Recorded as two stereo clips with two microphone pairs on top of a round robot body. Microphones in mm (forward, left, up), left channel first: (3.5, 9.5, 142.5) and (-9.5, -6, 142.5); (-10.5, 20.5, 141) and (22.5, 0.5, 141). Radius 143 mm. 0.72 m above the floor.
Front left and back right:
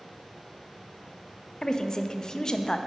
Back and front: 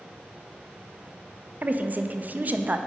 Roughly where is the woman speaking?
Ahead.